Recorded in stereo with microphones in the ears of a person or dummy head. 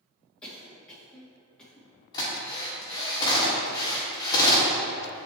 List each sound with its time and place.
0.4 s a cough: 10° left (ahead or behind), 2 m
2.1 s a drill: 25° left (ahead or behind), 2.0 m